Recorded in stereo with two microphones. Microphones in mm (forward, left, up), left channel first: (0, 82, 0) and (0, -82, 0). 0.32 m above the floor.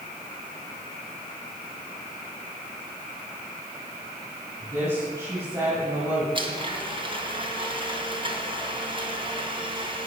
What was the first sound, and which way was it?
A woman speaking, 15° right (ahead or behind).